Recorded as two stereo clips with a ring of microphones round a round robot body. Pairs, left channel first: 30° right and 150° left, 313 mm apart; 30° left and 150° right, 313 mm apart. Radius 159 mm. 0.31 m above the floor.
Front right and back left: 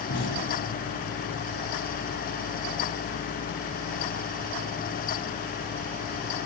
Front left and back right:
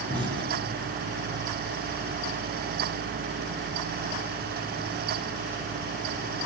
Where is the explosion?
75° right, 6 m.